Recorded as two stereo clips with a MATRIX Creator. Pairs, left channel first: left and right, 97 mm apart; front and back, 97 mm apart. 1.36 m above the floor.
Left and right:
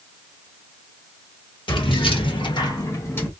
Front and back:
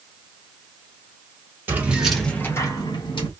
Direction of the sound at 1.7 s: 115° left.